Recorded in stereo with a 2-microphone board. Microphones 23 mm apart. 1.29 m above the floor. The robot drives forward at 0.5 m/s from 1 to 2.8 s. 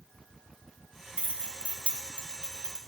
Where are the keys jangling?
65° right (ahead or behind), 1.2 m; by 2.8 s 45° right (ahead or behind), 1.6 m.